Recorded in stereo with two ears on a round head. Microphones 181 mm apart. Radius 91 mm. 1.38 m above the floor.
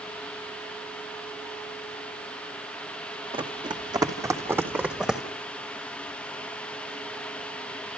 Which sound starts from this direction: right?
Running footsteps, at 3.3 s.